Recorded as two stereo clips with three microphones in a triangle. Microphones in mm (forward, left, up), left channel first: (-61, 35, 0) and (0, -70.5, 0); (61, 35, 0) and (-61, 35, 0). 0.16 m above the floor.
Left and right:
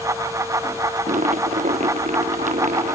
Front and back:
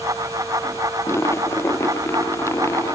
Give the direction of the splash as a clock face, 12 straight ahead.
2 o'clock.